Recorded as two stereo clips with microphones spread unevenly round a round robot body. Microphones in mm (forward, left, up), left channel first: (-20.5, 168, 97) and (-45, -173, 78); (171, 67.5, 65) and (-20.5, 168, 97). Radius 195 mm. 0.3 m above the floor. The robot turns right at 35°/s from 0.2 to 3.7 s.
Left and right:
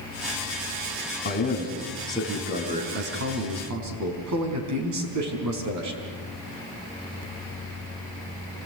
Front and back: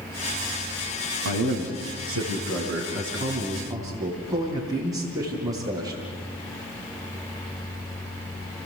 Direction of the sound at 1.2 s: 145° left.